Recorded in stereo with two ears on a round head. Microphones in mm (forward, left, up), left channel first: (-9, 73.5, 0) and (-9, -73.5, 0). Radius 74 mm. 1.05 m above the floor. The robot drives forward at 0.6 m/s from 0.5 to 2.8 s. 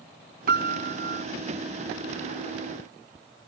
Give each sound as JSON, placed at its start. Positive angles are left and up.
{"t": 0.5, "sound": "a piano", "side_deg": -65}